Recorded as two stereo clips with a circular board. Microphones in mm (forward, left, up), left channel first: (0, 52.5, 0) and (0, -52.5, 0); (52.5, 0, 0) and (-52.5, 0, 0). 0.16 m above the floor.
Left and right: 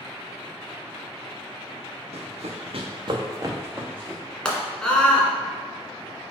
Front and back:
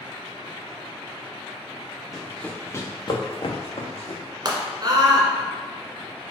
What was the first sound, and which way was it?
Running footsteps, 95° right.